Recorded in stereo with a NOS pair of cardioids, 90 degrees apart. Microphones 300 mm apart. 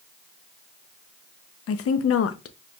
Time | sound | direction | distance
1.7 | a woman speaking | 50° left | 0.7 m